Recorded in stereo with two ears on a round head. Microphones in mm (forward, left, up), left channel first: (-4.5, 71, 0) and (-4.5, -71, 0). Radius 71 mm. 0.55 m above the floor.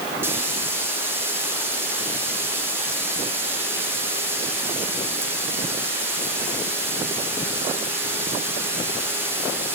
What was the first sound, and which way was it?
Frying, 15° right (ahead or behind).